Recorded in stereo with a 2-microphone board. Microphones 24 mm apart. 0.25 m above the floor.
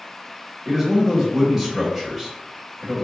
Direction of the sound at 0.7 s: 10° right (ahead or behind).